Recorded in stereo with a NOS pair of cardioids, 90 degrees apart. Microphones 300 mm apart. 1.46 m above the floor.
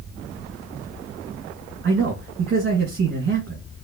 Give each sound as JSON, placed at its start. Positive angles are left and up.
{"t": 1.8, "sound": "a man speaking", "azimuth_deg": -40, "distance_m": 1.7}